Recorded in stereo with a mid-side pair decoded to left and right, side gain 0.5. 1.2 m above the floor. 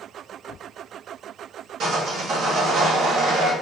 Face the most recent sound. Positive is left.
turn(degrees=-60)